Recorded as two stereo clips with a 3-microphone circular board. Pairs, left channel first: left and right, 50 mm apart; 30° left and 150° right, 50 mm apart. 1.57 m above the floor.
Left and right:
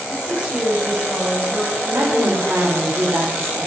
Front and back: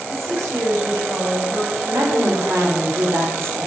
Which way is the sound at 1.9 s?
125° right.